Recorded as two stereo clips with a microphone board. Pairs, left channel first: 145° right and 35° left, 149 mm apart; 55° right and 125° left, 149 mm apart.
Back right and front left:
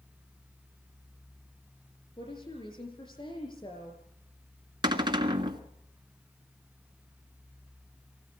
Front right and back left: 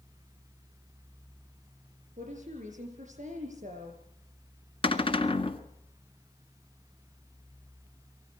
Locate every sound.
2.2 s a woman speaking: 160° left, 7.5 m
4.8 s a cupboard door: 15° right, 1.6 m